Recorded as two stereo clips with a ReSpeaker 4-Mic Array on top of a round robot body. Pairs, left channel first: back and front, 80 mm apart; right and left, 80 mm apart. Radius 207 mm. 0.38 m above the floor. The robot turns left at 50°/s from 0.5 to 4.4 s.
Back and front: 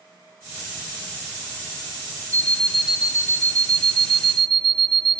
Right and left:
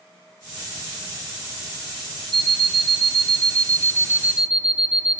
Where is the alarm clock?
110° left, 0.9 m; by 5.2 s 10° left, 0.9 m.